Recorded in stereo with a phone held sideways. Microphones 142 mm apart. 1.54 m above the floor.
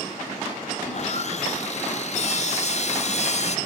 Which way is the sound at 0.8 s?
50° left (ahead or behind).